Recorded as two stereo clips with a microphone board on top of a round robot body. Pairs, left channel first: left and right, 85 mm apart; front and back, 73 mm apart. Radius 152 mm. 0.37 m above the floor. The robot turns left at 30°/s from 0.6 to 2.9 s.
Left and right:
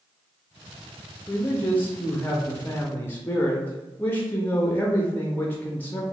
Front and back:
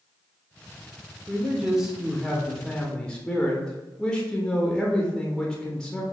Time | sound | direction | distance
1.3 | a man speaking | 120° left | 0.8 m